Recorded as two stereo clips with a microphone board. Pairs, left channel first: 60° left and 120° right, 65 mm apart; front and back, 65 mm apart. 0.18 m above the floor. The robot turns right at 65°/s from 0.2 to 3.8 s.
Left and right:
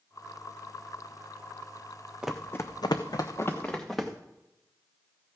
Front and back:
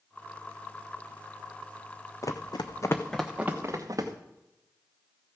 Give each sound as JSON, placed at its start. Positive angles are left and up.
{"t": 2.2, "sound": "running footsteps", "azimuth_deg": -45, "distance_m": 0.8}